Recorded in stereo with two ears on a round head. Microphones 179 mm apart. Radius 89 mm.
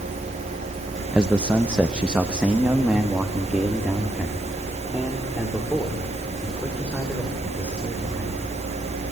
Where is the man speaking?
5° right (ahead or behind), 0.8 m.